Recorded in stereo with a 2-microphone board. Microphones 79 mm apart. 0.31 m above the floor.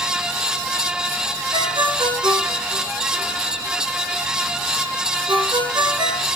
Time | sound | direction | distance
1.5 | a ringtone | 80° right | 3 m